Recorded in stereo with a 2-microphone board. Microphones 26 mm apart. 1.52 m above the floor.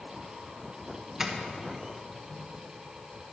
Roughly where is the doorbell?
Centre.